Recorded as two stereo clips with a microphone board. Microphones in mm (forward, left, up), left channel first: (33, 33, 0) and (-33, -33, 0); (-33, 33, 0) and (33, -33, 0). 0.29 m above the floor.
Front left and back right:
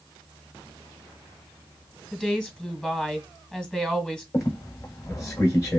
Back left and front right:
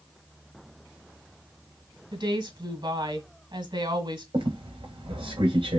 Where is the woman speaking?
35° right, 1.7 m.